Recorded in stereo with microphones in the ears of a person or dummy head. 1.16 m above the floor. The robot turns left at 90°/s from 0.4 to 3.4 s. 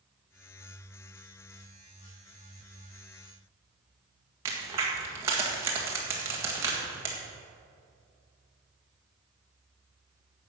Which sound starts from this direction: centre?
A crack, at 4.5 s.